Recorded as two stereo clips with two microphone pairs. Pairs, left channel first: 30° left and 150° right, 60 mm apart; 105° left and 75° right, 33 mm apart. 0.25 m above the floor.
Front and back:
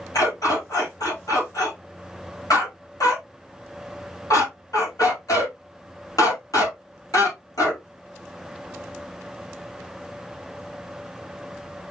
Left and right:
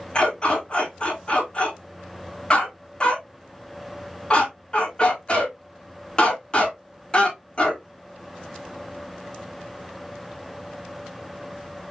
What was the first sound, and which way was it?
A dog barking, 45° left.